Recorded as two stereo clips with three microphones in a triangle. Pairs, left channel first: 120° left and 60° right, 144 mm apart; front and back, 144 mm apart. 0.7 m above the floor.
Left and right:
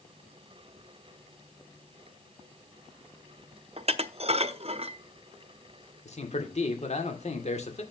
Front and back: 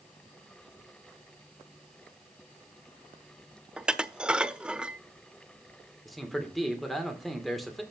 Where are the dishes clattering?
95° right, 0.6 m.